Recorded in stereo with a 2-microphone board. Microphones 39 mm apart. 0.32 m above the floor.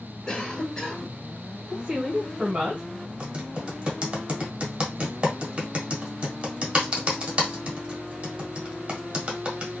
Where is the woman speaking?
25° right (ahead or behind), 1.4 m.